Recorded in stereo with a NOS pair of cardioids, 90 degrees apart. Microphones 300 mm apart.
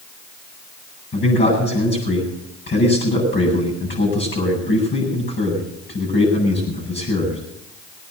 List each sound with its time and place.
1.1 s a man speaking: 35° left, 8 m